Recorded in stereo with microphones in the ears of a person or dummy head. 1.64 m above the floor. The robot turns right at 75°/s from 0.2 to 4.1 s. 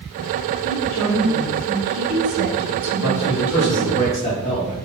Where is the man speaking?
70° left, 1.8 m; by 4.8 s 155° left, 1.8 m.